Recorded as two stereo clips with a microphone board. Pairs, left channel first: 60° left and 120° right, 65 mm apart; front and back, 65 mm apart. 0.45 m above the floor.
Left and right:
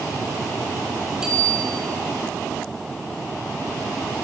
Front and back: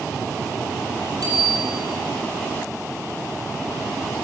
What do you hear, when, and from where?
1.2 s a bicycle bell: 160° left, 9.5 m